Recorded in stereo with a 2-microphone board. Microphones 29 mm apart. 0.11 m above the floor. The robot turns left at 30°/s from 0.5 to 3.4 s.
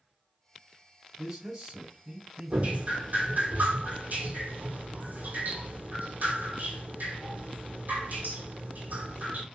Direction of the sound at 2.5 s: 45° right (ahead or behind).